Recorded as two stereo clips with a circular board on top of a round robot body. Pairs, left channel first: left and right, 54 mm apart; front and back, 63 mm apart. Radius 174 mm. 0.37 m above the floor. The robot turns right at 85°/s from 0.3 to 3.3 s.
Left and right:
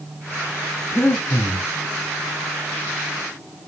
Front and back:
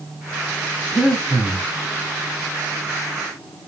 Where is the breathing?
65° left, 1.0 m; by 1.6 s 125° left, 1.0 m.